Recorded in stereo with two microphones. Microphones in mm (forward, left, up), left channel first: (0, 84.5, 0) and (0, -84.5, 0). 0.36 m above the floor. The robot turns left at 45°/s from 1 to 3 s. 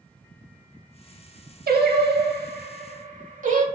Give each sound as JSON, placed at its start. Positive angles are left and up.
{"t": 1.7, "sound": "singing", "side_deg": -70, "distance_m": 0.5}